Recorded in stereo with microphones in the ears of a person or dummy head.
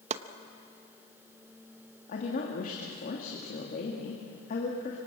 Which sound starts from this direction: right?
Chopping, at 0.1 s.